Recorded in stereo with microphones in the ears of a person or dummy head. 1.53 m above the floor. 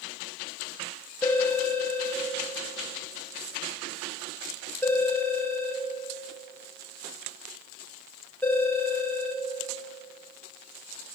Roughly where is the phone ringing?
Centre.